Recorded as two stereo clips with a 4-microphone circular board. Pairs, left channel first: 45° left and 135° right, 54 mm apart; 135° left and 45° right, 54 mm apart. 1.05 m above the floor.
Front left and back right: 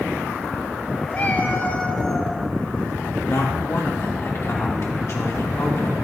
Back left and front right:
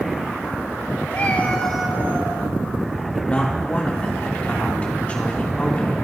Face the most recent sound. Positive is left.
turn(degrees=70)